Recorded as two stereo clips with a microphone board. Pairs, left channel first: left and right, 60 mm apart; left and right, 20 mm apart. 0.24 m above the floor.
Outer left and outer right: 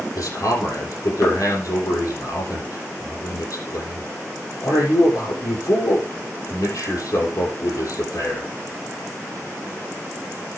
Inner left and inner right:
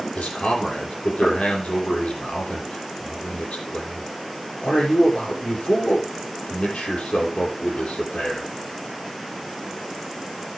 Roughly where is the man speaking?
Left.